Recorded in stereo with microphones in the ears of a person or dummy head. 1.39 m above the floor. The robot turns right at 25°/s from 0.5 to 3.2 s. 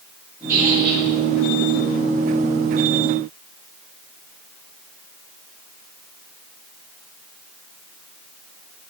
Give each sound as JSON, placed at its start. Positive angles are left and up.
{"t": 0.5, "sound": "a squeak", "side_deg": -15, "distance_m": 3.0}